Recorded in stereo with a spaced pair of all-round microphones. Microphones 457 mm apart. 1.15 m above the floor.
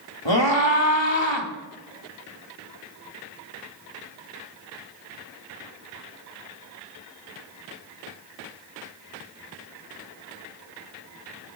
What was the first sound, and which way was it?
A scream, 70° left (ahead or behind).